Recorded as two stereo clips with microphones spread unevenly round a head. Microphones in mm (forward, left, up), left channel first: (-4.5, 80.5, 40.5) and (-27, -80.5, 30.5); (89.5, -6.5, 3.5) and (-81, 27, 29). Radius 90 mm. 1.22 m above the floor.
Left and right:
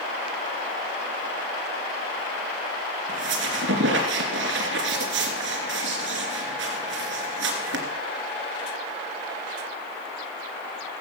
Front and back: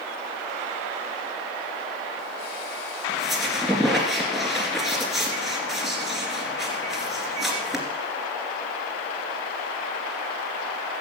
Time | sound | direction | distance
3.1 | a squeak | 105° right | 2.5 m